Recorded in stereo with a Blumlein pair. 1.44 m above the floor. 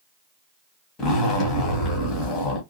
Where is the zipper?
30° left, 1.6 m.